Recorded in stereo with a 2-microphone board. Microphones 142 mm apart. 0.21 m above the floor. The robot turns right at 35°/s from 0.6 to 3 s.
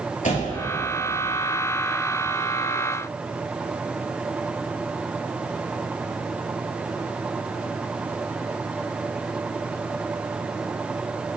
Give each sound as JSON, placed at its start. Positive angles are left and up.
{"t": 0.2, "sound": "a door slam", "side_deg": 60, "distance_m": 3.5}